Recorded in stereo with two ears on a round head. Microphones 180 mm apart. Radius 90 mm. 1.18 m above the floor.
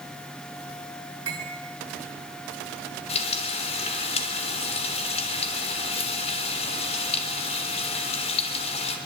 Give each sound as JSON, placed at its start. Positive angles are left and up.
{"t": 1.3, "sound": "cutlery clinking", "side_deg": -70, "distance_m": 9.0}
{"t": 3.1, "sound": "frying", "side_deg": 30, "distance_m": 3.5}